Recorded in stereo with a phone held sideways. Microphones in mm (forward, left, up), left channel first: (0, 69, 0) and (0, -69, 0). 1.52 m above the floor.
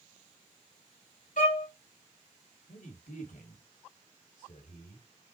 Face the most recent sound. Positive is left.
turn(degrees=80)